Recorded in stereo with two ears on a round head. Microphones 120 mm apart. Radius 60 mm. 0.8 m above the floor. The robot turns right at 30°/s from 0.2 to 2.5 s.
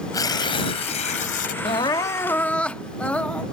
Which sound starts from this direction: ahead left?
Tearing paper, at 0.1 s.